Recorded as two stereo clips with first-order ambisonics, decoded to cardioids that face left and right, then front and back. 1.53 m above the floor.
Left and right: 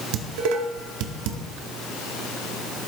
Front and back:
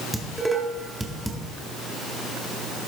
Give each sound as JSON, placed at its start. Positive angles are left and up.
{"t": 0.1, "sound": "dishes clattering", "azimuth_deg": -95, "distance_m": 1.9}